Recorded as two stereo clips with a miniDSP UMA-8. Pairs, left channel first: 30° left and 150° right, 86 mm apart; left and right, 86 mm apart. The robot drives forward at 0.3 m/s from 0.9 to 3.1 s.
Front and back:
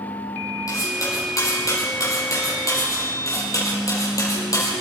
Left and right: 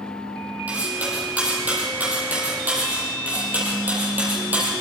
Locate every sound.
0.7 s cutlery clinking: 20° right, 7.5 m